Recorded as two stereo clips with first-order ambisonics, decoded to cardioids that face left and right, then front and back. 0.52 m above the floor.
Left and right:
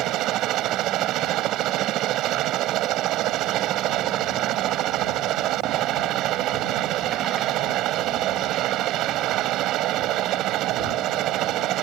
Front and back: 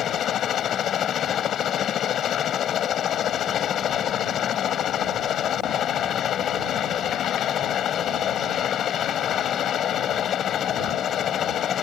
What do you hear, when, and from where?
0.0 s a helicopter: 55° right